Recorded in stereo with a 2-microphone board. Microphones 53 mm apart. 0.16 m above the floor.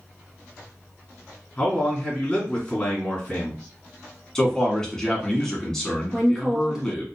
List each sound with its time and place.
1.6 s a man speaking: 20° left (ahead or behind), 2 m
4.3 s a man speaking: 10° left (ahead or behind), 1.1 m
6.1 s a woman speaking: 5° right (ahead or behind), 1.2 m